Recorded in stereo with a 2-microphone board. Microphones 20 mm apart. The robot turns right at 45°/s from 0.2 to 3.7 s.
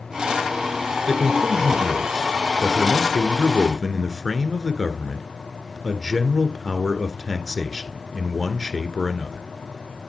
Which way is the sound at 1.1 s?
Centre (ahead or behind).